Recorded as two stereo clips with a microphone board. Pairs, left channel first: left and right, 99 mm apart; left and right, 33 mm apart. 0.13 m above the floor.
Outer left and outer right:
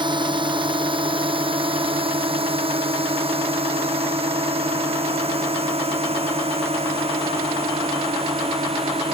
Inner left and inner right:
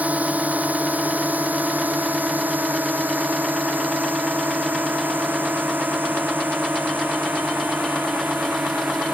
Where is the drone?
50° right (ahead or behind); by 9.2 s 80° right.